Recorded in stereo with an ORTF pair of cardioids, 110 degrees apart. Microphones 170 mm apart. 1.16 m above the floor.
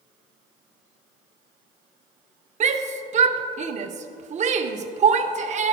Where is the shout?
45° right, 0.8 m.